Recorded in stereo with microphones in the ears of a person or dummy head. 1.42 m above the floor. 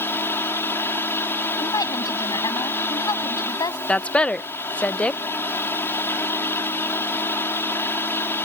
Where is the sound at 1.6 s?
25° left (ahead or behind).